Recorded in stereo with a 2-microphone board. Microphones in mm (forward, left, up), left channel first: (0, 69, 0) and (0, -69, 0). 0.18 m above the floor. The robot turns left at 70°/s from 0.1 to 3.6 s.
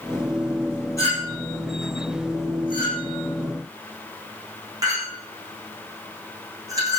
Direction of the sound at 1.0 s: 20° left (ahead or behind).